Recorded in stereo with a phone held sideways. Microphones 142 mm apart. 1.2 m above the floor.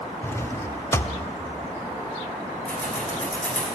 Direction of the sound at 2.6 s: 10° left (ahead or behind).